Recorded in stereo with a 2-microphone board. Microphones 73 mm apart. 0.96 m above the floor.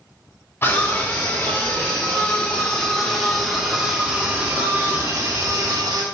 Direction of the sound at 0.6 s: 30° left (ahead or behind).